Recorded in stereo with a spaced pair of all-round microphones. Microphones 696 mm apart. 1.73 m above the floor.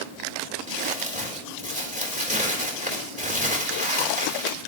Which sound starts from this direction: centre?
Crumpling, at 0.7 s.